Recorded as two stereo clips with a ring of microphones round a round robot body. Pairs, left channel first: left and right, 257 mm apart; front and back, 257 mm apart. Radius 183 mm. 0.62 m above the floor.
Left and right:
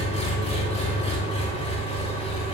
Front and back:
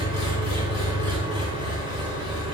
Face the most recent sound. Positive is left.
turn(degrees=25)